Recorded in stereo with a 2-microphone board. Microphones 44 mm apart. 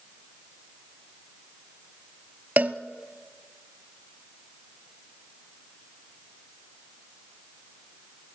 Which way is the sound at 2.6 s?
35° right (ahead or behind).